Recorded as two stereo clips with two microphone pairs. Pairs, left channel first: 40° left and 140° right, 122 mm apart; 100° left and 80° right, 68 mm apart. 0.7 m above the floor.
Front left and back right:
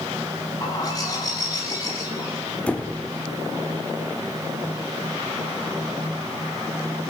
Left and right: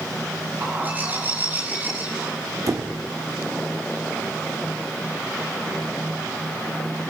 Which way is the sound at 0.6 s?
15° right.